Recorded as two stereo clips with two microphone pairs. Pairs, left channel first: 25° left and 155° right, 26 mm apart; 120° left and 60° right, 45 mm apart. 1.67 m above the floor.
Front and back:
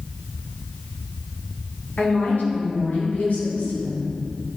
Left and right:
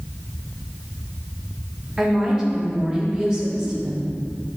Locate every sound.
2.0 s a woman speaking: 15° left, 3 m